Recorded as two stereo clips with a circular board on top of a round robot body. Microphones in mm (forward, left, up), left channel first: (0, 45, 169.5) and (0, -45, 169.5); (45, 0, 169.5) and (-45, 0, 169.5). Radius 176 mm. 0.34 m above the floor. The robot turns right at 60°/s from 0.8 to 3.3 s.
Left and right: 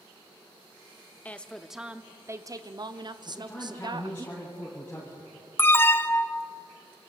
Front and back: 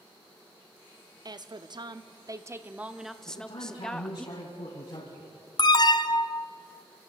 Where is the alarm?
30° left, 0.8 m.